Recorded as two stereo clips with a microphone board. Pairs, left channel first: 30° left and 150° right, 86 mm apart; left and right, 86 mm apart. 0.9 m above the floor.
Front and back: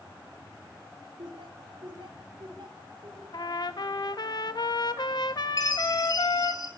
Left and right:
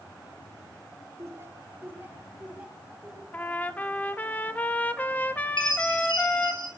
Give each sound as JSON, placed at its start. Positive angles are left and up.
{"t": 1.2, "sound": "laughter", "azimuth_deg": -140, "distance_m": 3.0}
{"t": 3.3, "sound": "a trumpet", "azimuth_deg": 25, "distance_m": 1.5}
{"t": 5.6, "sound": "a chime", "azimuth_deg": 70, "distance_m": 6.0}